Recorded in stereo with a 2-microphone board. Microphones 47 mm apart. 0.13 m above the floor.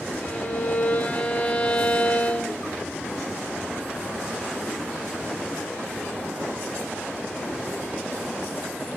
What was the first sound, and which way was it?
A violin, 35° left (ahead or behind).